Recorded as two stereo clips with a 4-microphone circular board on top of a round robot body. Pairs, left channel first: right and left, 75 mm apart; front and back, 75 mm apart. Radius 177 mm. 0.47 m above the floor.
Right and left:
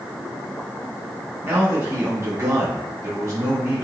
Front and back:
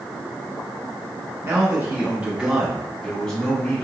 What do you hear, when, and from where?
1.4 s a man speaking: 140° left, 1.4 m; by 3.8 s 55° left, 1.3 m